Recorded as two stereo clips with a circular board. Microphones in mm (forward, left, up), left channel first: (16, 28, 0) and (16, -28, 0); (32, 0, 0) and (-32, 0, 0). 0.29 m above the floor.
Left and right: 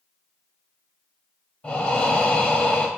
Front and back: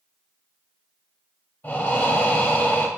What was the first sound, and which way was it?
Breathing, 35° left.